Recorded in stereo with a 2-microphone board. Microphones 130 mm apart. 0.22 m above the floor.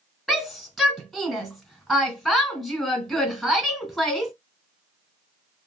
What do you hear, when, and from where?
0.3 s a shout: centre (ahead or behind), 1.3 m